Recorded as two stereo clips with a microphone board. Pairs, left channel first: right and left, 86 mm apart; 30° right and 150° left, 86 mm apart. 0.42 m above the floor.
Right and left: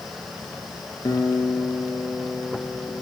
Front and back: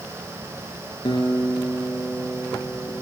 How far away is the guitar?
About 4.5 m.